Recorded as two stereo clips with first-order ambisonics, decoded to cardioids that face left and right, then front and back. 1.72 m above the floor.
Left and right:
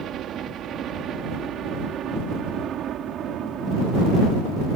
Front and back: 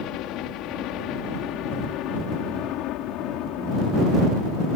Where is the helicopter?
35° right.